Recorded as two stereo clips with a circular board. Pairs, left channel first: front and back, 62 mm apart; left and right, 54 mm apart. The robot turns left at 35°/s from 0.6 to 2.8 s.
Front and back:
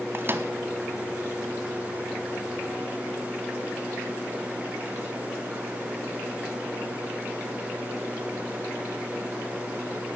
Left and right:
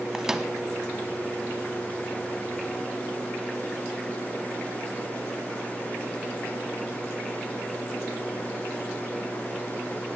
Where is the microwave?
160° right, 1.2 m.